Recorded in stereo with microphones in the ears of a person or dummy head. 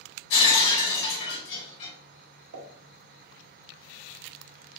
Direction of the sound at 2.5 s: 75° right (ahead or behind).